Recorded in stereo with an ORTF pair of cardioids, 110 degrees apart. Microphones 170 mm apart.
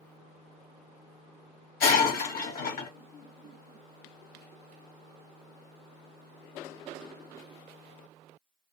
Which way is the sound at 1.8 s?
60° left.